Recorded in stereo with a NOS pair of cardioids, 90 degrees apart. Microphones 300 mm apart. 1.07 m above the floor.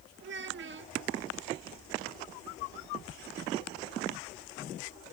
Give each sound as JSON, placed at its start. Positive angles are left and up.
{"t": 0.2, "sound": "a child speaking", "azimuth_deg": -40}